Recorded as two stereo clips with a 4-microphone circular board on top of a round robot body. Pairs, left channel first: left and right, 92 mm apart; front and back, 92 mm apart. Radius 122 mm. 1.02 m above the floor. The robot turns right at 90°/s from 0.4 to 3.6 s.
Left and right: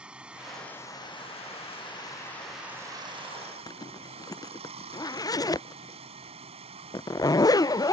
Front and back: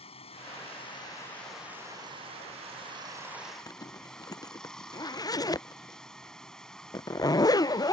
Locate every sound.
0.0 s running water: 10° right; by 7.9 s 85° right
3.7 s a zipper: 45° left